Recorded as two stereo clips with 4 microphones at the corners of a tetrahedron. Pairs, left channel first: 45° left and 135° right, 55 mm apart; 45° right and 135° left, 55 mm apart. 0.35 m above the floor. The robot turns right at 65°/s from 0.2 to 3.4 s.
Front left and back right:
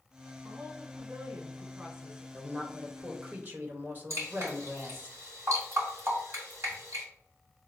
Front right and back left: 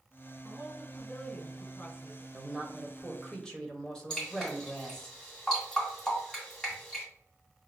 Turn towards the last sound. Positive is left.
turn(degrees=-120)